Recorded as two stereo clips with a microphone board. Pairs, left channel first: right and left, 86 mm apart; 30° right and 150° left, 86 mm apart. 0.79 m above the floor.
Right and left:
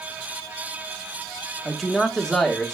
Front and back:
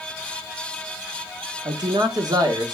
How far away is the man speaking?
About 1.1 m.